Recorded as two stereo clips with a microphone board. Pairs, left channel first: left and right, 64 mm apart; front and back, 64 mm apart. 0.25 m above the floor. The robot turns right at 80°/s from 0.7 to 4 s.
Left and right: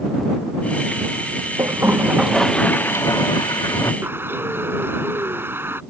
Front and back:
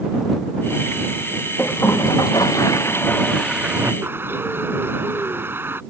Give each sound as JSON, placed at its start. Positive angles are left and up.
{"t": 1.6, "sound": "a toilet flushing", "azimuth_deg": -60}
{"t": 4.0, "sound": "a bird", "azimuth_deg": -135}